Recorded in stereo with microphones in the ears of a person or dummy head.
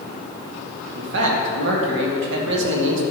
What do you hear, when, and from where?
0.9 s a man speaking: 65° right (ahead or behind), 1.4 m